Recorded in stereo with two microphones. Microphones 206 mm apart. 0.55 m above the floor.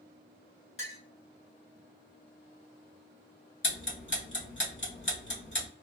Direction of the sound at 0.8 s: 75° left (ahead or behind).